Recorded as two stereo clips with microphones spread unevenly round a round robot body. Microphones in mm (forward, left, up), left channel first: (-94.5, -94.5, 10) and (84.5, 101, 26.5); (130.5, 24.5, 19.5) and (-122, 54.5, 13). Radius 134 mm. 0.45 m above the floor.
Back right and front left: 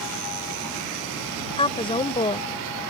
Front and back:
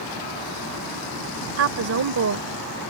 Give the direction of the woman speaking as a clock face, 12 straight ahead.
7 o'clock.